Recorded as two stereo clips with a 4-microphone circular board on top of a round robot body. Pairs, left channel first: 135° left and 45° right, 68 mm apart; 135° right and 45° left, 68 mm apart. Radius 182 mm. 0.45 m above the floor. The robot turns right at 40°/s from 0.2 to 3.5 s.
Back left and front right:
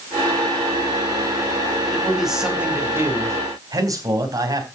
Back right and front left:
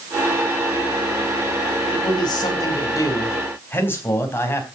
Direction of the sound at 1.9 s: 145° right.